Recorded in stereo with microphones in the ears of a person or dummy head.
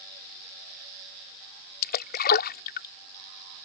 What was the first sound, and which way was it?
A splash, 50° left (ahead or behind).